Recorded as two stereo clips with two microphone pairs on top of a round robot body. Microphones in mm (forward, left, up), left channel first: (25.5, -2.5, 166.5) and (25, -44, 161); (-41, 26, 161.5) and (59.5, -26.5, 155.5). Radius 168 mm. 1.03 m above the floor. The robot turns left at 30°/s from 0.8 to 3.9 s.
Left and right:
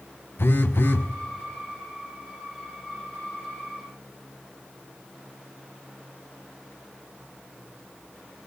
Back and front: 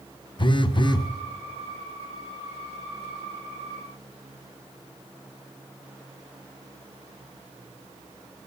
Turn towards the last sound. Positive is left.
turn(degrees=15)